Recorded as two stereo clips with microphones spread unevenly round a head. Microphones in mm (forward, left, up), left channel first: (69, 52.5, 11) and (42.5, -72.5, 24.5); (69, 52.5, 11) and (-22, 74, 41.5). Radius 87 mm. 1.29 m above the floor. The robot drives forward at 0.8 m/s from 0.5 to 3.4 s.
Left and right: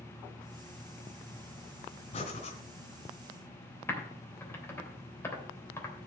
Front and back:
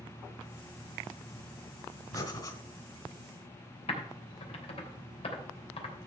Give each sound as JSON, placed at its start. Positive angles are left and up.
{"t": 2.1, "sound": "breathing", "azimuth_deg": 40, "distance_m": 3.0}
{"t": 3.9, "sound": "typing on a keyboard", "azimuth_deg": 5, "distance_m": 3.0}